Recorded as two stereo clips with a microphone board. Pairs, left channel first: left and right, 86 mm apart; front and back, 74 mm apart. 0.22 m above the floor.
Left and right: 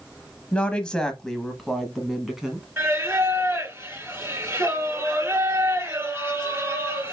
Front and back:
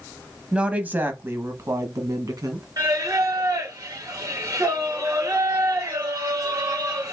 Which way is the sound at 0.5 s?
135° left.